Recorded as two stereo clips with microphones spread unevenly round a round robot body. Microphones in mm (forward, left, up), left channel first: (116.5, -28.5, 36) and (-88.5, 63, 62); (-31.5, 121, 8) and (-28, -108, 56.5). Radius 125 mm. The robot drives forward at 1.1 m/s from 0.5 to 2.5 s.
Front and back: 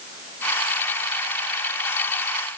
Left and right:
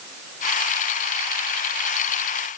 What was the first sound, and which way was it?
Only background noise.